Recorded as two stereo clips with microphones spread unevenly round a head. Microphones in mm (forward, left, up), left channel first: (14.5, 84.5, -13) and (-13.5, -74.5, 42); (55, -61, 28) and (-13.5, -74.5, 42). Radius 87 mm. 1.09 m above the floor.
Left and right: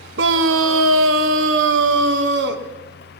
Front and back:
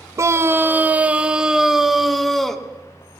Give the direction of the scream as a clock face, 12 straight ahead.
4 o'clock.